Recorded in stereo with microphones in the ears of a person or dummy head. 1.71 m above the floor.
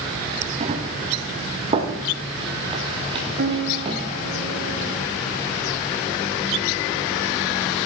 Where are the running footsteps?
40° right (ahead or behind), 4 m; by 4.0 s 30° right (ahead or behind), 7.5 m.